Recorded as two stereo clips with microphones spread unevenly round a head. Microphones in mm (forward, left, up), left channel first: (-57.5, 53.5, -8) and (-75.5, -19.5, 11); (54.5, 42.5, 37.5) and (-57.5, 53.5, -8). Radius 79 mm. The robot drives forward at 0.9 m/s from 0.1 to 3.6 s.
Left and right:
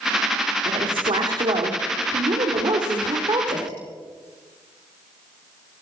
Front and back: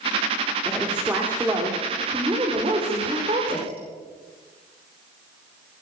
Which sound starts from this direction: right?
A woman speaking, at 0.7 s.